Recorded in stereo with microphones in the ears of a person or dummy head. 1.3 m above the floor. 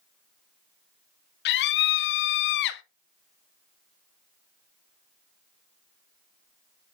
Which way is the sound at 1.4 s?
65° left (ahead or behind).